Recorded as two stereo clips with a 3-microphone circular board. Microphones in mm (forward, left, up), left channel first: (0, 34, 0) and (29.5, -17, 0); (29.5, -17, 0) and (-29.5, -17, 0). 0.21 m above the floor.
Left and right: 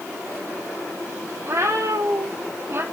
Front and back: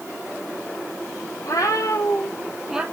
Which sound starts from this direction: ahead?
A cat meowing, at 1.4 s.